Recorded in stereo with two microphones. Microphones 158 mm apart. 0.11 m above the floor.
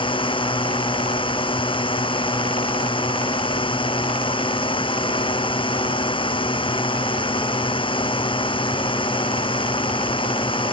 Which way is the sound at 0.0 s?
35° left (ahead or behind).